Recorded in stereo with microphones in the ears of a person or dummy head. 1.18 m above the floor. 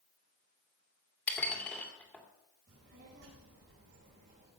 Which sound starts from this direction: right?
A child speaking, at 2.7 s.